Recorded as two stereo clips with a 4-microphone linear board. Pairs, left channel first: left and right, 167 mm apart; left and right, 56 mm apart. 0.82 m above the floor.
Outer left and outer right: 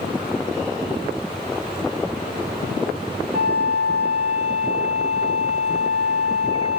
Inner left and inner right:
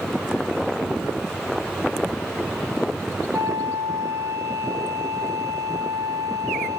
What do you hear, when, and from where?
3.3 s a flute: 80° right, 5 m